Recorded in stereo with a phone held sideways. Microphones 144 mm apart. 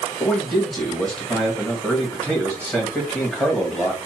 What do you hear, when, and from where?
0.2 s a man speaking: 10° left (ahead or behind), 2.0 m